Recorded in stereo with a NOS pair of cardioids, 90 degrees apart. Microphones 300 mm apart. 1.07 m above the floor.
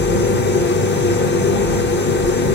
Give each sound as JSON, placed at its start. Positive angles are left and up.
{"t": 0.0, "sound": "a machine running", "azimuth_deg": 35, "distance_m": 1.0}